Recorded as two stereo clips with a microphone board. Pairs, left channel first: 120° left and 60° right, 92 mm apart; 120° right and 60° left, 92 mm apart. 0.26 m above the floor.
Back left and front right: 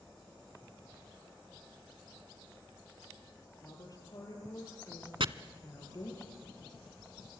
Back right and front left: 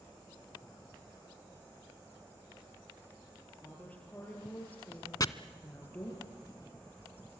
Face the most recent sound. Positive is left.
turn(degrees=-75)